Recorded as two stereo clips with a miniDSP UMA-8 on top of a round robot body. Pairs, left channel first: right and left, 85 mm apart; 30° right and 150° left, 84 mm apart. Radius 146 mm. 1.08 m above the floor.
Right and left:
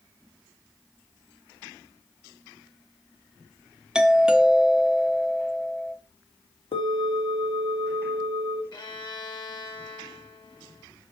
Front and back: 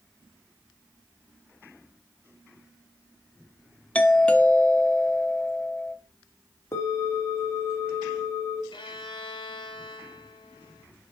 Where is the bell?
90° right, 1.8 m.